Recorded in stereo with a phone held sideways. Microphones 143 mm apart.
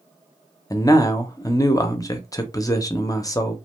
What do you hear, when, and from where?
0.7 s a man speaking: 25° left (ahead or behind), 0.5 m